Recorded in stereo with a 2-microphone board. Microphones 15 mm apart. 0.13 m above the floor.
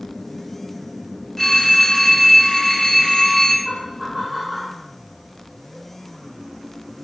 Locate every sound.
1.4 s a phone ringing: 25° left (ahead or behind), 0.8 m
3.6 s laughter: 20° right (ahead or behind), 1.2 m